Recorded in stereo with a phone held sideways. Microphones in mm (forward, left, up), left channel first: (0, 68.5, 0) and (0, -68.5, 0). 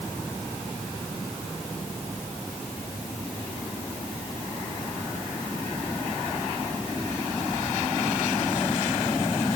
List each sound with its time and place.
Only background noise.